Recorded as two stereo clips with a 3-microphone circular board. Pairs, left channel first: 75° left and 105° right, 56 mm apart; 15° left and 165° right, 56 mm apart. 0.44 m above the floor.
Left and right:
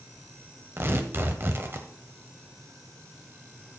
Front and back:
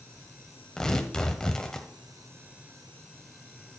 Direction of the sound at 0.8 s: 60° right.